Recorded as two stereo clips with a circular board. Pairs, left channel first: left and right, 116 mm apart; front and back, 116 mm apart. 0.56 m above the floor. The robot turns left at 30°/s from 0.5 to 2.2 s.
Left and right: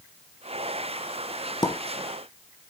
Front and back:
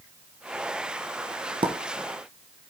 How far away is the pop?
About 1.1 m.